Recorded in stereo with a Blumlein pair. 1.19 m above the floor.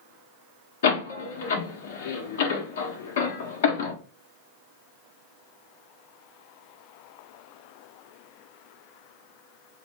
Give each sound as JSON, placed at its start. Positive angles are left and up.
{"t": 0.8, "sound": "a door slam", "azimuth_deg": 60, "distance_m": 0.8}